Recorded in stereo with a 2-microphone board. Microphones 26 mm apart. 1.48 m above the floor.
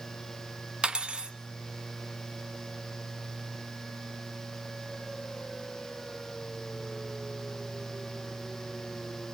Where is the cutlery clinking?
35° right (ahead or behind), 0.9 m.